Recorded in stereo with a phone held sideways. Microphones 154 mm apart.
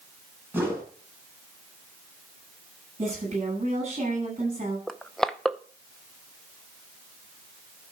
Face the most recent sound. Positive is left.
turn(degrees=5)  # may be behind; listen again after turning